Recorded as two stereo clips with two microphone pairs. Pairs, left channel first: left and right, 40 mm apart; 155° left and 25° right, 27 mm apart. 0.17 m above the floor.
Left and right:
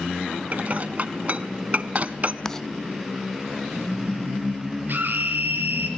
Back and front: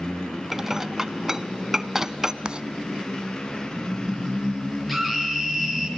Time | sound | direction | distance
0.5 | dishes clattering | 95° right | 0.9 m
2.5 | writing | 15° left | 0.5 m
4.9 | a scream | 115° right | 4 m